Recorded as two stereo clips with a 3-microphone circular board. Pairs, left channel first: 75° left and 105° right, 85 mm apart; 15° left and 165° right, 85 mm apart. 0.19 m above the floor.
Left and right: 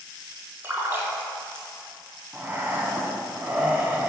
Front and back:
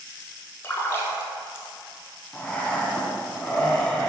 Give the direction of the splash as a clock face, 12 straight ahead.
1 o'clock.